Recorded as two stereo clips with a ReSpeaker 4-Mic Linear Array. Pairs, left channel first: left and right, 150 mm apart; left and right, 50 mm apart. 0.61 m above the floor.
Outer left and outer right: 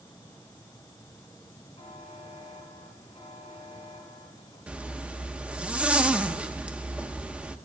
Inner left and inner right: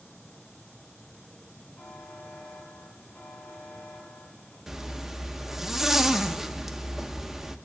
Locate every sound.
1.8 s a buzzer: 45° left (ahead or behind), 4 m
4.7 s a zipper: 10° right (ahead or behind), 0.7 m